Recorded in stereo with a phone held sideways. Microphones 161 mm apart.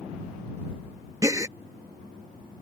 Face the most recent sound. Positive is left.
turn(degrees=-20)  # may be behind; listen again after turning